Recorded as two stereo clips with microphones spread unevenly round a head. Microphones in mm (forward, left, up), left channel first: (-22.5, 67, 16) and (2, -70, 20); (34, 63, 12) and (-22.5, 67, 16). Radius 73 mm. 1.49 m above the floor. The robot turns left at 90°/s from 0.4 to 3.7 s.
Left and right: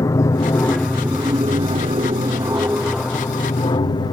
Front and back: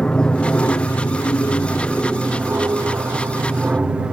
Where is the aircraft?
55° left; by 4.1 s 120° left.